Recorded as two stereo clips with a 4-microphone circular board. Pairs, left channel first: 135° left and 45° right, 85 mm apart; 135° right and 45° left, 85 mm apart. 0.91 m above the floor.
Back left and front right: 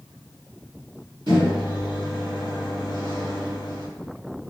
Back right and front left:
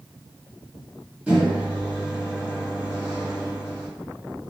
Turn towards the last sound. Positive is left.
turn(degrees=-30)